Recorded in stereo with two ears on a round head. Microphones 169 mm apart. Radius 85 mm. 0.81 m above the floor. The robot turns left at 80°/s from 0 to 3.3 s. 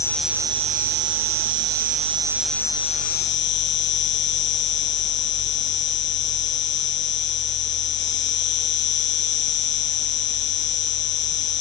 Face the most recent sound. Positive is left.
turn(degrees=115)